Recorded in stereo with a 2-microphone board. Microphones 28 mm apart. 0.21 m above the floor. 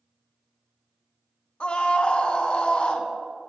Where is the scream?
40° left (ahead or behind), 1.6 m.